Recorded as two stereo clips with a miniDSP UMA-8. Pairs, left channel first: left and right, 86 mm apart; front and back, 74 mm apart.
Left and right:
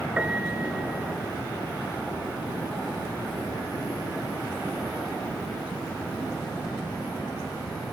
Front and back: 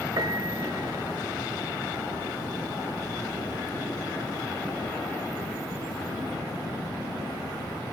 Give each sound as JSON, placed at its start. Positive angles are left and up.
{"t": 0.2, "sound": "a piano", "azimuth_deg": -165, "distance_m": 0.7}